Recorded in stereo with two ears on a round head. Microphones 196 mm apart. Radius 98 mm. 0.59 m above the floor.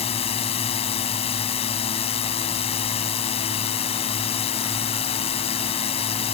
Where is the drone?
30° left (ahead or behind).